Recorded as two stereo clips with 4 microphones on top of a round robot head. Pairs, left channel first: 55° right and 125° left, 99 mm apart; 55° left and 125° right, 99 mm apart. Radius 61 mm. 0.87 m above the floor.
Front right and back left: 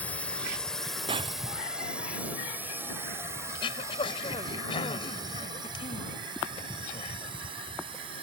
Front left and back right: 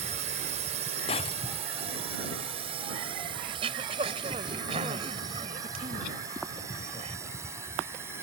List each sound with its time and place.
0.0 s a drone: 130° right; by 8.2 s 165° left
1.1 s breaking glass: 85° left
3.5 s throat clearing: 95° right